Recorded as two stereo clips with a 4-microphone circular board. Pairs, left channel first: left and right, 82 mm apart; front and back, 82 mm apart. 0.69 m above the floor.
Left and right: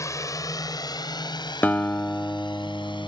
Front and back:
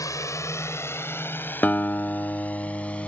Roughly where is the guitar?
Ahead left.